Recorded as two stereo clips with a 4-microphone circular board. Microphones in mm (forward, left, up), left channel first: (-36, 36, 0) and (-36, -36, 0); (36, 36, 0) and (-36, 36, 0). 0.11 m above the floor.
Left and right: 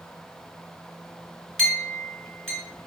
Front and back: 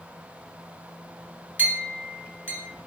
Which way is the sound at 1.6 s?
165° left.